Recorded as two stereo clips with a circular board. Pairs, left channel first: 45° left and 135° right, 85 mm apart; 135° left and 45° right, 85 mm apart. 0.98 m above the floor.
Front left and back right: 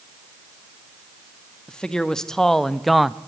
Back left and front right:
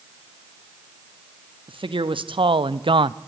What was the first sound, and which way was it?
A man speaking, 35° right.